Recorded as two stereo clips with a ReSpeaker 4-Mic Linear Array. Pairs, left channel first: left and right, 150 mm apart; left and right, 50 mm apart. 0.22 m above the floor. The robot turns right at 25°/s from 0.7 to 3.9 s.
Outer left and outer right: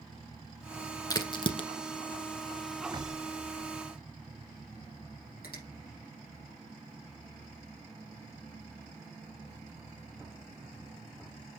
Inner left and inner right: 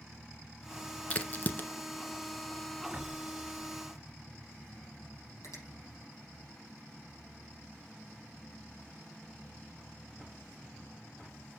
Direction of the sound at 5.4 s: 80° left.